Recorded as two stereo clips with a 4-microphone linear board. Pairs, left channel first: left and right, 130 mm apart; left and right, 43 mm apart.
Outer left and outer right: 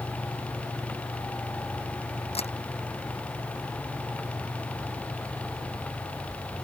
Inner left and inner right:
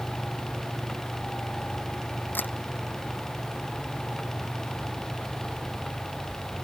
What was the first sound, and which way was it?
A camera shutter, 50° left (ahead or behind).